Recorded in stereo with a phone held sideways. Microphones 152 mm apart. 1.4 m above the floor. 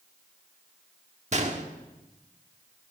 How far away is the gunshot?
About 1.5 m.